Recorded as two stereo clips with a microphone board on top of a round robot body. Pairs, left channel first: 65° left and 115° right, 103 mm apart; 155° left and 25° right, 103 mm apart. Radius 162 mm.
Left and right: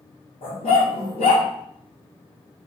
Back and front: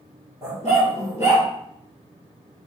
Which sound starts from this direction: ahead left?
A dog barking, at 0.4 s.